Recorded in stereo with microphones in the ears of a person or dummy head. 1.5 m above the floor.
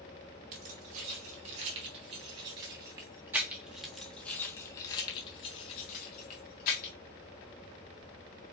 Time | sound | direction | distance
0.5 | keys jangling | 45° right (ahead or behind) | 2.5 m